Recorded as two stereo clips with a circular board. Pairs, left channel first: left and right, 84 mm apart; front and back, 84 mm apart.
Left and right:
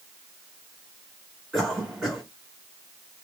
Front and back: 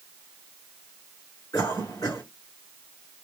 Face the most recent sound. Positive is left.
turn(degrees=-10)